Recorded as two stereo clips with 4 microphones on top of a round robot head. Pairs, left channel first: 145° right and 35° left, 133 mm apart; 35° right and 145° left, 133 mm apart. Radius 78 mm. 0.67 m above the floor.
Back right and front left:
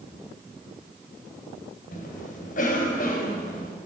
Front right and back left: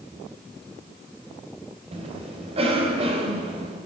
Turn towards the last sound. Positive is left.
turn(degrees=-170)